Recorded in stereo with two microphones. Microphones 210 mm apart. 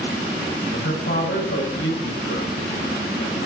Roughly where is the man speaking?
Left.